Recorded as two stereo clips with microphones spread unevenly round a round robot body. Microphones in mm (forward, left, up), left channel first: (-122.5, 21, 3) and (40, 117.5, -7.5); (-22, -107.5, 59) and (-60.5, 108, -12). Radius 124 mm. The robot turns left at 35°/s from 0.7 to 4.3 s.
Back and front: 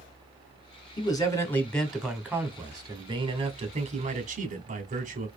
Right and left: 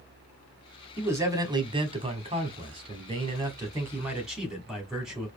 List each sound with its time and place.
1.0 s a man speaking: 150° left, 1.6 m; by 5.3 s 35° left, 1.6 m